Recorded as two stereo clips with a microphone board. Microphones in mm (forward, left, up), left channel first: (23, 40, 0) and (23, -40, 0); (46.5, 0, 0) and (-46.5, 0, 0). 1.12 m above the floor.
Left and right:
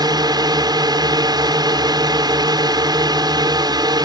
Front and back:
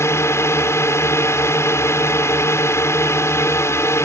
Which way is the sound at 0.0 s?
60° right.